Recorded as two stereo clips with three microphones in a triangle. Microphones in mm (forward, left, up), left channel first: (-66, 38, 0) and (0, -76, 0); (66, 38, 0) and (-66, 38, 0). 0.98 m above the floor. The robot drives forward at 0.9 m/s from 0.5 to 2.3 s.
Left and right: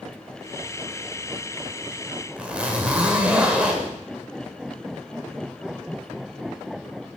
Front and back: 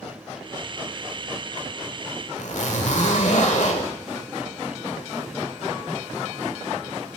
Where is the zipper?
20° left, 1.5 m.